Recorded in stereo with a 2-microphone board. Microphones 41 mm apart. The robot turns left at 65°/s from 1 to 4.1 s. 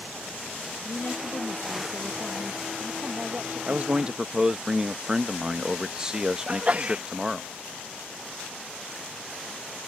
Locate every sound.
0.8 s a woman speaking: 105° left; by 4.1 s 95° right
3.7 s a man speaking: 50° right (ahead or behind); by 7.5 s 20° right (ahead or behind)
6.5 s a sneeze: 30° right (ahead or behind)